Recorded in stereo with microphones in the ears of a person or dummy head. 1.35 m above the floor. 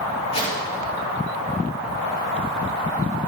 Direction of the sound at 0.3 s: 35° left (ahead or behind).